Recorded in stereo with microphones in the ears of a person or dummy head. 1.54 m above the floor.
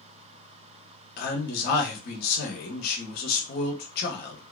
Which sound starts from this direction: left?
A man speaking, at 1.2 s.